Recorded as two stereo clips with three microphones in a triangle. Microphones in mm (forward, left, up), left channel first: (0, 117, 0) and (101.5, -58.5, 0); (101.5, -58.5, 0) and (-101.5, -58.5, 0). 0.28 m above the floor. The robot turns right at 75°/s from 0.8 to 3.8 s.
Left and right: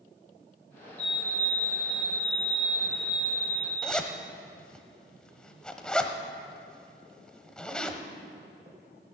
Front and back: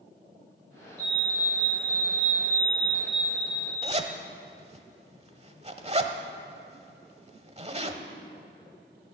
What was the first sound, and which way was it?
A fire alarm, 45° right.